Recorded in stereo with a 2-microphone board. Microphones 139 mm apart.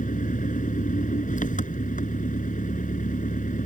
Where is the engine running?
70° left (ahead or behind).